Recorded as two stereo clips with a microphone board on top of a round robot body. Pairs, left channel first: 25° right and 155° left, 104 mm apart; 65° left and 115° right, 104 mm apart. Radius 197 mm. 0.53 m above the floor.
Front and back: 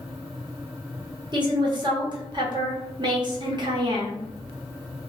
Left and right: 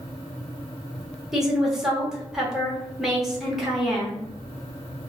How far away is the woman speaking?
About 1.2 m.